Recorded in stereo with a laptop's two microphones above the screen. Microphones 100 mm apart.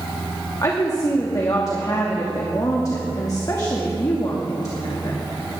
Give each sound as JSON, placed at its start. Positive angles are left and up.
{"t": 0.6, "sound": "a woman speaking", "side_deg": 35, "distance_m": 1.7}